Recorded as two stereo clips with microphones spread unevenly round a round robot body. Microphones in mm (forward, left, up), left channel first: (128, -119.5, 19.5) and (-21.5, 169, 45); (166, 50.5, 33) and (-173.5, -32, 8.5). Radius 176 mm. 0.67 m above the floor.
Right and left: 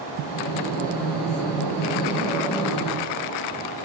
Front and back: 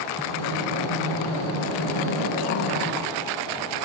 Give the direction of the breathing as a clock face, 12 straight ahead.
11 o'clock.